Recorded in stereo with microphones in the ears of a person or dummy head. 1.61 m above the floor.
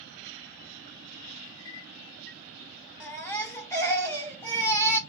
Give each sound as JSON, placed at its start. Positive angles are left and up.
{"t": 1.4, "sound": "a clink", "side_deg": 70, "distance_m": 1.9}
{"t": 3.0, "sound": "a baby crying", "side_deg": 15, "distance_m": 1.3}